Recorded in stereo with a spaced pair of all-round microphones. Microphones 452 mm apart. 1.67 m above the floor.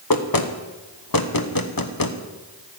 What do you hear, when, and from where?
0.1 s knocking: 50° left (ahead or behind), 1.0 m